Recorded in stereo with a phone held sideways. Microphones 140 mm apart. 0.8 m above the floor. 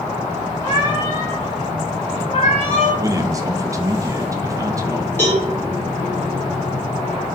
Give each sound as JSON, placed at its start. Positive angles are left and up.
{"t": 0.6, "sound": "a cat meowing", "side_deg": 35, "distance_m": 4.5}
{"t": 3.0, "sound": "a man speaking", "side_deg": -25, "distance_m": 0.7}
{"t": 5.2, "sound": "a cowbell", "side_deg": 15, "distance_m": 4.5}